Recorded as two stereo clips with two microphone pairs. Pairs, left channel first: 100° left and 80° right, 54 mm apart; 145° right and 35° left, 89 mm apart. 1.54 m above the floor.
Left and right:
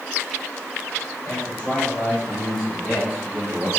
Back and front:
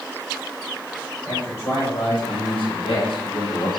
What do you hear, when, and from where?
1.2 s a man speaking: 160° left, 3 m; by 3.7 s 135° right, 1.9 m